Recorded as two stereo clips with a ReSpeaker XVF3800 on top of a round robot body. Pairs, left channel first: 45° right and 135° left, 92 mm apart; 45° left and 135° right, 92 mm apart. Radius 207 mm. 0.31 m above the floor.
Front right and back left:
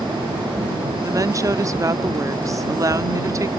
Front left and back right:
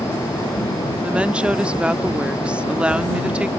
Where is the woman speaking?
155° left.